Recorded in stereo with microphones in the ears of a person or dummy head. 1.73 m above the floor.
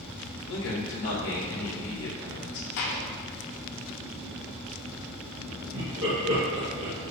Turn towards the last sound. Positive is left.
turn(degrees=-65)  # may be behind; listen again after turning